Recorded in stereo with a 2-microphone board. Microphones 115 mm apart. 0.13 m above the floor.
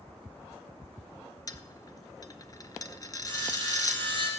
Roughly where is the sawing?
Right.